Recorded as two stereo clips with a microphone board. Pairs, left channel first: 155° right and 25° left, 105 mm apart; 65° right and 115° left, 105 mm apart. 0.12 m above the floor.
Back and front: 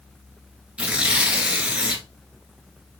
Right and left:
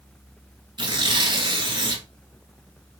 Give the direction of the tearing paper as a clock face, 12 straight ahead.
9 o'clock.